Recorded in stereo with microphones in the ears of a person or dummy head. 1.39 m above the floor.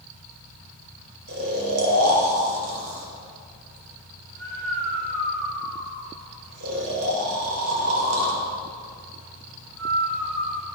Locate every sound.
1.3 s snoring: 80° right, 2 m